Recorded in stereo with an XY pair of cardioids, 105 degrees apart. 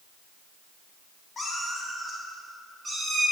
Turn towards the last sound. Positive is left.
turn(degrees=-25)